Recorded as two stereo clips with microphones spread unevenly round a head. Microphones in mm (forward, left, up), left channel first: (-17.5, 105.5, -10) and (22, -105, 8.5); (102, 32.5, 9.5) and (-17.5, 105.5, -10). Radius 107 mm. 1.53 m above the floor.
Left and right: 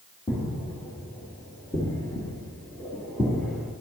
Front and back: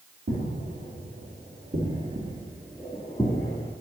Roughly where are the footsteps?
Behind.